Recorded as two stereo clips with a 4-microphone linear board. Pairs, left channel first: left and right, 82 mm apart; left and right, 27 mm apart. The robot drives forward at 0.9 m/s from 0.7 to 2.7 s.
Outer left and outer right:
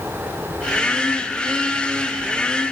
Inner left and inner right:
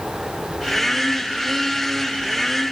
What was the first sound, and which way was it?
Only background noise.